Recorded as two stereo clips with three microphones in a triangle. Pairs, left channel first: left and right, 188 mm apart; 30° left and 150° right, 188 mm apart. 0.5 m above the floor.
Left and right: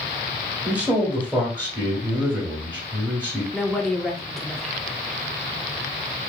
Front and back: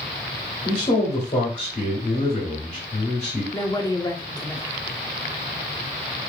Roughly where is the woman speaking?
Ahead.